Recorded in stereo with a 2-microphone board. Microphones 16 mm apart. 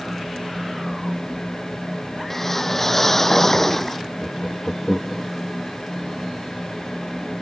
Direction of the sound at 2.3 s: 15° left (ahead or behind).